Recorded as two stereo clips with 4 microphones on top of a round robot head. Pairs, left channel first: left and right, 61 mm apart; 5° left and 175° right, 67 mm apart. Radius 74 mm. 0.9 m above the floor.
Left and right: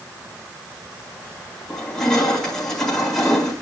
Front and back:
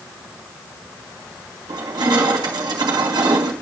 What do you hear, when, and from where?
1.7 s crushing: 175° left, 4 m